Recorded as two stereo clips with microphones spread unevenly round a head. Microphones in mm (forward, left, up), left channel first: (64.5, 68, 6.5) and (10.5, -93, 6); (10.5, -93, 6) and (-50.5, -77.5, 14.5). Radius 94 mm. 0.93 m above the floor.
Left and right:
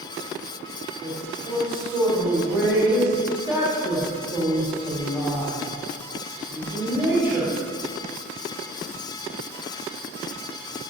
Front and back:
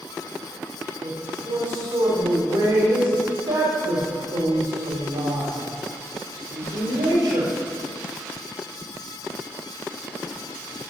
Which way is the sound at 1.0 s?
170° left.